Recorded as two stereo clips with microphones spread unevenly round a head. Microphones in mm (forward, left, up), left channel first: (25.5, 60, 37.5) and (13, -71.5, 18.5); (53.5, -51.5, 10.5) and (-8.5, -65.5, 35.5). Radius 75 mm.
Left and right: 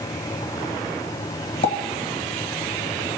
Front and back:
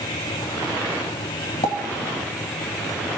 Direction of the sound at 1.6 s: 45° left.